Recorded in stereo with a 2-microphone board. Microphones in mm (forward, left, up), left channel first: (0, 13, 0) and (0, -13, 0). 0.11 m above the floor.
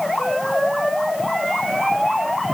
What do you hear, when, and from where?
Only background noise.